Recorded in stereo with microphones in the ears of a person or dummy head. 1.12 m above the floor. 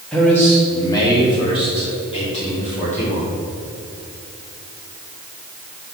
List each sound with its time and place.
0.1 s a man speaking: 5° left (ahead or behind), 1.7 m; by 3.3 s 45° left (ahead or behind), 3.5 m